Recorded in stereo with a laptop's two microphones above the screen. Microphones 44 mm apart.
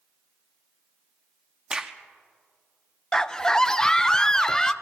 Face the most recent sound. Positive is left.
turn(degrees=15)  # may be behind; listen again after turning